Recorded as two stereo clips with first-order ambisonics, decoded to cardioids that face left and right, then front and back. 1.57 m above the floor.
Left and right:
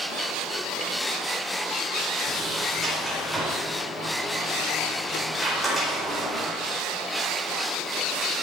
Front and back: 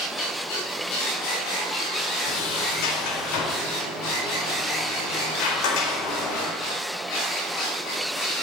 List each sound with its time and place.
2.2 s a sliding door: straight ahead, 4 m